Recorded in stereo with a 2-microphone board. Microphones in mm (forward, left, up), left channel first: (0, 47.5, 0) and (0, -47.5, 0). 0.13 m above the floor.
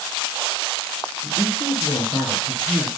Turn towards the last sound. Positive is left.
turn(degrees=55)  # may be behind; listen again after turning